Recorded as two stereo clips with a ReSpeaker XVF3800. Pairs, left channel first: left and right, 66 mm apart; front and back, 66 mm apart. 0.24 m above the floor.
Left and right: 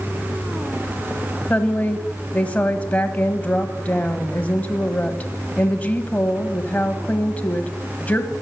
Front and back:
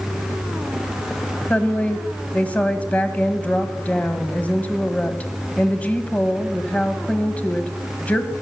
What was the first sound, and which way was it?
A woman speaking, 45° left.